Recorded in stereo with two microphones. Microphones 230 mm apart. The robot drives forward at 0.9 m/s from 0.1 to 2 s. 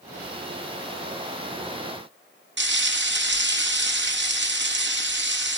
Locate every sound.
2.6 s frying: 50° right (ahead or behind), 0.7 m